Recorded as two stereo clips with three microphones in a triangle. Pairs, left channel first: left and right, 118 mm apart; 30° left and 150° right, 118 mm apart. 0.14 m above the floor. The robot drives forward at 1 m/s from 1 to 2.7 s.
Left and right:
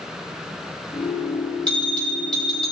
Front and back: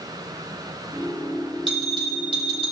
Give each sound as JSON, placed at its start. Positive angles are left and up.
{"t": 1.7, "sound": "a bell", "azimuth_deg": 170, "distance_m": 4.5}